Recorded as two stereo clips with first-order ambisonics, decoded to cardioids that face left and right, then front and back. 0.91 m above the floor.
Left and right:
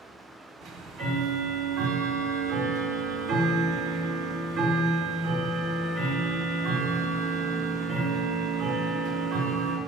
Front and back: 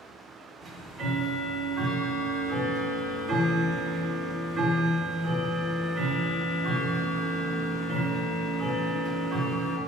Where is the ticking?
120° right, 1.1 m.